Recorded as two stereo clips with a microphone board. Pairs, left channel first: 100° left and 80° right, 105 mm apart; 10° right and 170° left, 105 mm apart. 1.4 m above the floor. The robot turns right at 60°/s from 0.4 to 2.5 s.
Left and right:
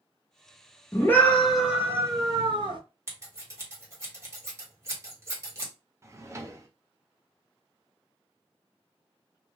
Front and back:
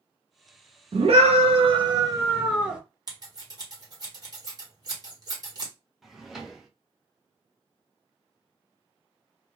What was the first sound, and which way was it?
A scream, 155° left.